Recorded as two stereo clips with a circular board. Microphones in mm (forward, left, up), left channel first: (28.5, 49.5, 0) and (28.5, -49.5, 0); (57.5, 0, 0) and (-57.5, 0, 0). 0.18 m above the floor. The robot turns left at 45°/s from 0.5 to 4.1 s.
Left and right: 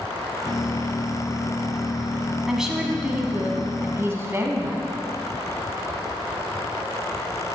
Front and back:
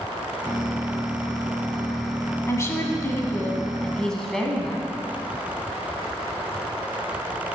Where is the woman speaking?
5° right, 1.4 m; by 4.9 s 80° right, 1.4 m.